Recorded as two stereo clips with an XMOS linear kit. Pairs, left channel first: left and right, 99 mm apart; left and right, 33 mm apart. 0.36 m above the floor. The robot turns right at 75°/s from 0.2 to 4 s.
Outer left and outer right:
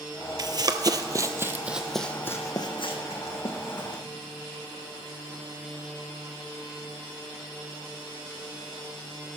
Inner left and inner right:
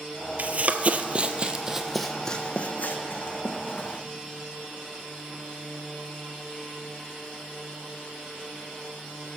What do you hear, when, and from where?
0.4 s running footsteps: 45° right (ahead or behind), 0.5 m; by 4.0 s 40° left (ahead or behind), 2.0 m